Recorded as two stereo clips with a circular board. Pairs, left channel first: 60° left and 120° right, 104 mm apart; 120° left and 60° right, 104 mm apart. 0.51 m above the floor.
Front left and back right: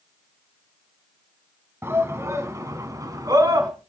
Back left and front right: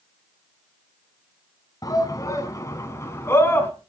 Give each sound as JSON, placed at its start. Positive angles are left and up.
{"t": 1.8, "sound": "a shout", "azimuth_deg": 175, "distance_m": 3.5}